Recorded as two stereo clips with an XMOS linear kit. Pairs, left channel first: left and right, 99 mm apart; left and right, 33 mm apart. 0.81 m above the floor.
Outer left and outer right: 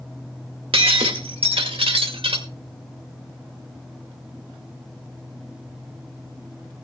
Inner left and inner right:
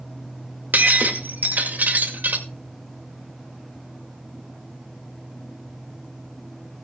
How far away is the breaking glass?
About 2 m.